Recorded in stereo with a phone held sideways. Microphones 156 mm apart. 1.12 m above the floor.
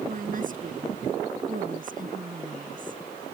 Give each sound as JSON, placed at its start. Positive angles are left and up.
{"t": 0.1, "sound": "a woman speaking", "side_deg": -60}